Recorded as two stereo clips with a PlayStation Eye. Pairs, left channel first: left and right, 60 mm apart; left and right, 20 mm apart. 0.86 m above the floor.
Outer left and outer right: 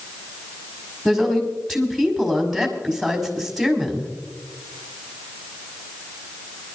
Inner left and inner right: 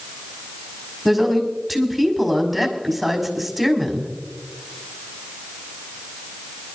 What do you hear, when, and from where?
1.1 s a woman speaking: 5° left (ahead or behind), 5 m